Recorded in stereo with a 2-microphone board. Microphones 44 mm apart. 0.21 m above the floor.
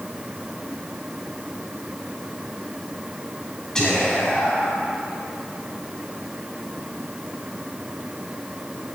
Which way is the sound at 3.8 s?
20° left (ahead or behind).